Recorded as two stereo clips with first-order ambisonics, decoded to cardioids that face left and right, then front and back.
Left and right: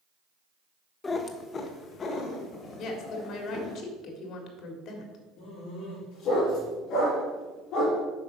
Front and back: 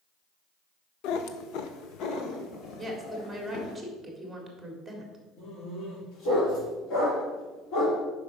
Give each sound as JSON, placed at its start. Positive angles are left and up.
{"t": 1.0, "sound": "a cat meowing", "azimuth_deg": 20, "distance_m": 0.6}
{"t": 2.8, "sound": "a woman speaking", "azimuth_deg": 90, "distance_m": 1.6}
{"t": 5.4, "sound": "a dog barking", "azimuth_deg": 40, "distance_m": 4.0}